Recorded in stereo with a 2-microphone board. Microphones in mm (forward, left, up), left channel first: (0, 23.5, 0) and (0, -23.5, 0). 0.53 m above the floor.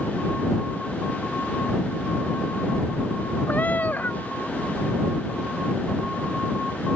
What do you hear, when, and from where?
3.5 s a cat meowing: 40° left (ahead or behind)